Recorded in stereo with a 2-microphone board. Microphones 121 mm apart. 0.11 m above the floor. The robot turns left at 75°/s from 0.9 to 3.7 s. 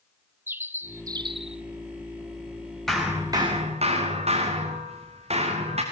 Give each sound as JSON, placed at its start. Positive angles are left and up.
{"t": 0.5, "sound": "a bird", "azimuth_deg": -20, "distance_m": 0.7}
{"t": 2.9, "sound": "hammering", "azimuth_deg": 5, "distance_m": 4.5}